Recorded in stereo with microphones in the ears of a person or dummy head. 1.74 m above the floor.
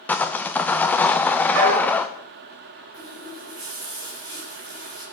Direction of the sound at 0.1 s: 5° left (ahead or behind).